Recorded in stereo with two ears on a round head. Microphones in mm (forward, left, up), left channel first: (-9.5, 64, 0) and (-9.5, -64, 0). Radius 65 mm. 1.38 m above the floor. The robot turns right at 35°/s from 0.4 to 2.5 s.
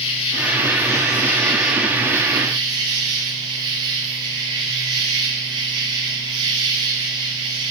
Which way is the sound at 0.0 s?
140° left.